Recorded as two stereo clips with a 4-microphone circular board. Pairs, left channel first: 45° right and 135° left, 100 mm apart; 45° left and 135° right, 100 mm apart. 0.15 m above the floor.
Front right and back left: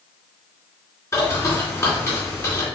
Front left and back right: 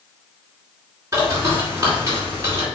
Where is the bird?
90° right, 2 m.